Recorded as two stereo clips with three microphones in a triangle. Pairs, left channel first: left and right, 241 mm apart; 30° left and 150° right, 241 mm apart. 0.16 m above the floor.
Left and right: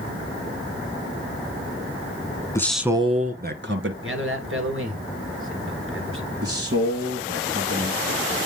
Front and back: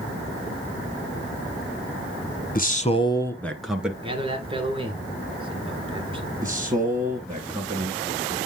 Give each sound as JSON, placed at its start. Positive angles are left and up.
{"t": 2.5, "sound": "a man speaking", "azimuth_deg": 20, "distance_m": 1.2}
{"t": 4.0, "sound": "a man speaking", "azimuth_deg": -85, "distance_m": 2.0}
{"t": 6.4, "sound": "a man speaking", "azimuth_deg": -75, "distance_m": 2.0}